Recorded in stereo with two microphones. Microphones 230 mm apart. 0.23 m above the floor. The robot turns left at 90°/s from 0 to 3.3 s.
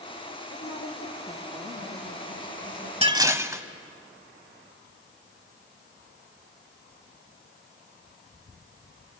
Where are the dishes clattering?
25° right (ahead or behind), 1.0 m; by 3.6 s 10° right (ahead or behind), 1.0 m.